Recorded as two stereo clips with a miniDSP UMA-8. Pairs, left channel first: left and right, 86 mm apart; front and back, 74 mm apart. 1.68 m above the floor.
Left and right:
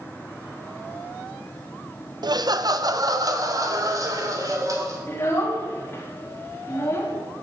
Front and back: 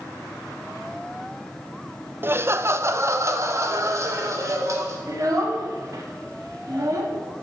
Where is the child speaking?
150° left, 2.5 m.